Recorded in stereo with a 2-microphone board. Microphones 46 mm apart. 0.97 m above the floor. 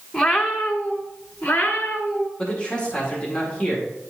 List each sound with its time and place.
0.1 s a cat meowing: 10° left (ahead or behind), 0.9 m; by 2.3 s 35° left (ahead or behind), 1.7 m
2.4 s a man speaking: 20° left (ahead or behind), 1.9 m